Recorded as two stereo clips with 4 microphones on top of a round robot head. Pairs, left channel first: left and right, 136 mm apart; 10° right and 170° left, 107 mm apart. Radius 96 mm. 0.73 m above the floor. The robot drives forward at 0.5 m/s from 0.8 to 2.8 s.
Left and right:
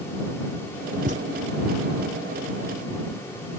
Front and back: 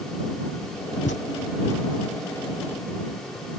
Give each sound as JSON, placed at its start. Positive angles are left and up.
{"t": 1.1, "sound": "a thud", "azimuth_deg": -40}